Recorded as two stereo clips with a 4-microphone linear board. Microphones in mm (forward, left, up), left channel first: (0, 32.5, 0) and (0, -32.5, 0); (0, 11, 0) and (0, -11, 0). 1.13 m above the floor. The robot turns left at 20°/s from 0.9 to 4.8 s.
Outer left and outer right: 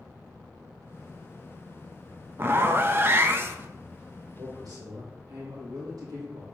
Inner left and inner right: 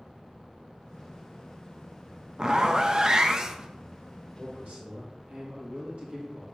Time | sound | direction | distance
2.4 | a zipper | 35° right (ahead or behind) | 0.6 m
4.4 | a man speaking | 70° right (ahead or behind) | 2 m